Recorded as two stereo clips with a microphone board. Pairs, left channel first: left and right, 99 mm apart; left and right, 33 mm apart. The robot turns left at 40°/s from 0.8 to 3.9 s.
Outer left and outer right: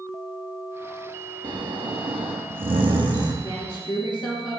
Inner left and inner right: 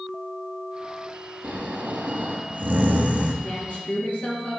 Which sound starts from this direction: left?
A woman speaking, at 3.4 s.